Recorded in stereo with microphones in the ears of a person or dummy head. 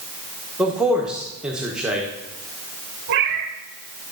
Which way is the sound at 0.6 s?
5° right (ahead or behind).